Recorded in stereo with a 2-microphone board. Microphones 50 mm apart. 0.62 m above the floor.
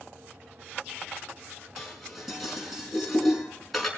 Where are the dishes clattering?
Centre (ahead or behind), 5 m.